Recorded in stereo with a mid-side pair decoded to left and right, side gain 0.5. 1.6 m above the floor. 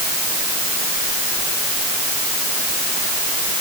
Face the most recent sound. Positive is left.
No sound to turn to.